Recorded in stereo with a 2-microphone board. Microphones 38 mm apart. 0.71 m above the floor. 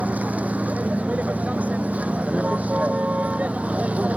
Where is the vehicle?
40° right (ahead or behind); by 4.2 s 35° right (ahead or behind).